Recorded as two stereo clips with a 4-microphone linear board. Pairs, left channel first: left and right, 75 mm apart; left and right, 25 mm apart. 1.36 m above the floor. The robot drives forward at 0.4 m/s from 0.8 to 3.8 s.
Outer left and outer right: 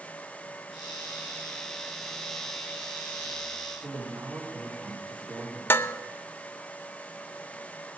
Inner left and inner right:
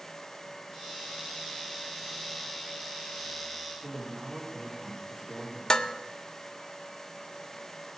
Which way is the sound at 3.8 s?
25° right (ahead or behind).